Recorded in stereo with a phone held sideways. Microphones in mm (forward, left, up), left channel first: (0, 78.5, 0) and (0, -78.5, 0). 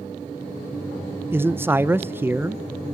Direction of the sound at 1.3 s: 15° right (ahead or behind).